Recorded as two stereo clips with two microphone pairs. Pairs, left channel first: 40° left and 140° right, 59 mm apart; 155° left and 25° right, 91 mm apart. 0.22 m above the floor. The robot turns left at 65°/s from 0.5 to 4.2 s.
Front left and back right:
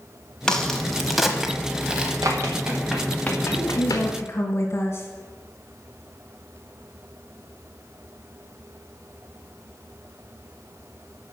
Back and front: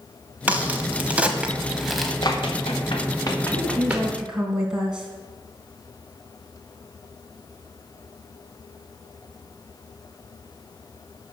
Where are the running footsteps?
160° right, 2.5 m; by 4.1 s 40° left, 2 m.